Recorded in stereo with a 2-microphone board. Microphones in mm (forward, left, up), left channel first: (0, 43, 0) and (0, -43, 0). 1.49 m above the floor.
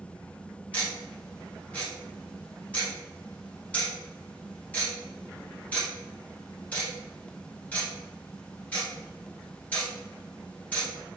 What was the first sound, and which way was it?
Ticking, 15° left (ahead or behind).